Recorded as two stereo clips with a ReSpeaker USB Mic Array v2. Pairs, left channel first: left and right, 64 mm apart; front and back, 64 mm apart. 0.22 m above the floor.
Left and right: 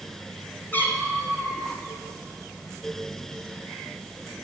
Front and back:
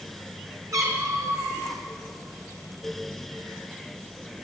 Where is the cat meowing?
150° left, 2.5 m.